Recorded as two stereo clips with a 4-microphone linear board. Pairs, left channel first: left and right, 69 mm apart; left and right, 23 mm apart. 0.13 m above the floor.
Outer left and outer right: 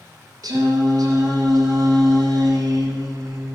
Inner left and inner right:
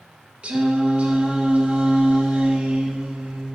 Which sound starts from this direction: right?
Singing, at 0.4 s.